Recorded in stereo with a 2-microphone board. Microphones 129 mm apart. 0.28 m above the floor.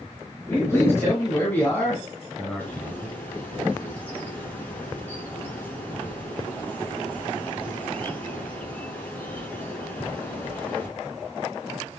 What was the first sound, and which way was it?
A man speaking, 25° left (ahead or behind).